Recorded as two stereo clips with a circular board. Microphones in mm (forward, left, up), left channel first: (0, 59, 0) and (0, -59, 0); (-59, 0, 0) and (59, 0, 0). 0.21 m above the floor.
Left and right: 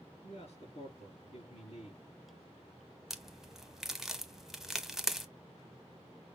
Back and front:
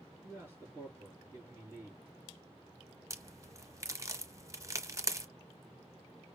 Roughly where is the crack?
Ahead.